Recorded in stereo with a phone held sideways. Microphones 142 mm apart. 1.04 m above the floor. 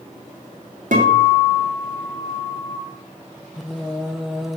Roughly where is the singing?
Centre.